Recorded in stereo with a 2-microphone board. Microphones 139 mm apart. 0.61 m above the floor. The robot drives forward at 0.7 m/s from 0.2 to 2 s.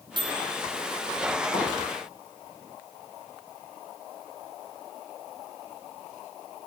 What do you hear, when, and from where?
0.2 s a microwave: 35° right (ahead or behind), 0.5 m
1.5 s a pop: 65° left (ahead or behind), 2 m